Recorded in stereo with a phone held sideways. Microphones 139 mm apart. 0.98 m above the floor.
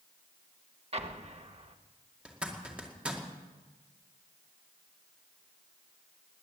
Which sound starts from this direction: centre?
A zipper, at 2.2 s.